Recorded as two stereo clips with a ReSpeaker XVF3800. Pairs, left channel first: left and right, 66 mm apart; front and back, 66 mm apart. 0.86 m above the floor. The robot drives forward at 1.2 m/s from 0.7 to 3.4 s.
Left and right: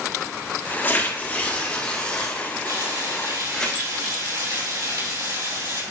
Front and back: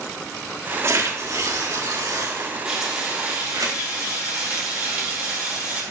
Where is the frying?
105° right, 5 m; by 5.8 s 115° right, 5 m.